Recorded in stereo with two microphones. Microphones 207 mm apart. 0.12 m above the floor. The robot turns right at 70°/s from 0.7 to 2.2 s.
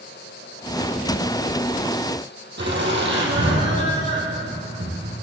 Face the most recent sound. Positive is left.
turn(degrees=-60)  # may be behind; listen again after turning